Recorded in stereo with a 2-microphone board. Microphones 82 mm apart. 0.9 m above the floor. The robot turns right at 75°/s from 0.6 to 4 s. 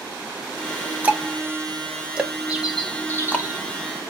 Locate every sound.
1.0 s ticking: 20° right (ahead or behind), 0.5 m; by 3.5 s 20° left (ahead or behind), 0.5 m
2.5 s a bird: 20° right, 0.6 m; by 3.7 s 70° left, 0.6 m